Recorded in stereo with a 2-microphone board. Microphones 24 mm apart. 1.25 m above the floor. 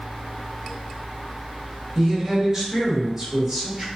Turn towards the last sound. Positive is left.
turn(degrees=-20)  # may be behind; listen again after turning